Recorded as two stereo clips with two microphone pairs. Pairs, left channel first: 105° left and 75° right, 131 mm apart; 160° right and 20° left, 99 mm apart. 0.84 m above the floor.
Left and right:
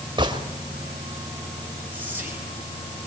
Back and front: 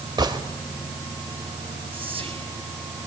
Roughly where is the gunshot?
Ahead right.